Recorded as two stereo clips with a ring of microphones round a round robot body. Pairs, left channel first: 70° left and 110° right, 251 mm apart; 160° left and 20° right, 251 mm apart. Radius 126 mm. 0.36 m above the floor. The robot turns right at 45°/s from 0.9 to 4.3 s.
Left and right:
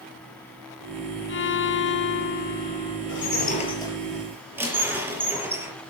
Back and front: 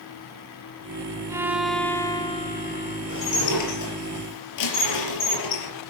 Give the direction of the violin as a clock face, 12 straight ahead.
10 o'clock.